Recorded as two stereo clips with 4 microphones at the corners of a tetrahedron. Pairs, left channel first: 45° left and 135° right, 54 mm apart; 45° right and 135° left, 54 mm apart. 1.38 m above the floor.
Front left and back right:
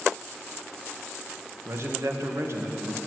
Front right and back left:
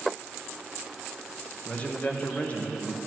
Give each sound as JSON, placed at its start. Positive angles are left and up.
{"t": 1.6, "sound": "a man speaking", "azimuth_deg": -110, "distance_m": 1.4}